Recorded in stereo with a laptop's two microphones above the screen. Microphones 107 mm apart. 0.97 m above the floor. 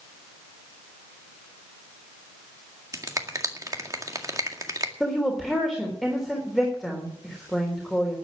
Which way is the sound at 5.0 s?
Centre (ahead or behind).